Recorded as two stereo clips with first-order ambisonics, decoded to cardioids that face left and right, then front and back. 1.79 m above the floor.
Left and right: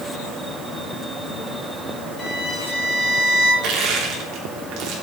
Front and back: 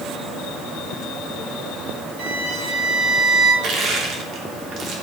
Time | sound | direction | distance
2.2 | a violin | 150° left | 6.5 m
3.6 | crushing | 130° right | 3 m